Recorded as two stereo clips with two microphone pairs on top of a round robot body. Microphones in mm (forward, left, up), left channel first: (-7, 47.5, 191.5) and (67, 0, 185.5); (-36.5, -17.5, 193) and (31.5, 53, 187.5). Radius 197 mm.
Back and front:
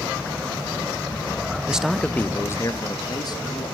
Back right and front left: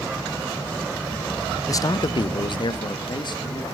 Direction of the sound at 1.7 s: 95° right.